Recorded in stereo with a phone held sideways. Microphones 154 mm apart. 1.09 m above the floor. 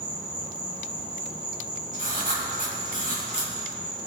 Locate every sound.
0.0 s an insect: 65° left (ahead or behind), 3 m
1.9 s writing: 60° left (ahead or behind), 4 m